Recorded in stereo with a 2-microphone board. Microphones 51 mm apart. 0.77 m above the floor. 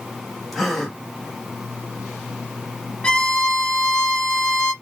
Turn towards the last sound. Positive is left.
turn(degrees=20)  # may be behind; listen again after turning